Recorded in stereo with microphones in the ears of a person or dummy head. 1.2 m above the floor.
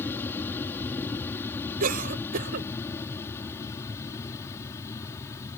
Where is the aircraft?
20° left (ahead or behind).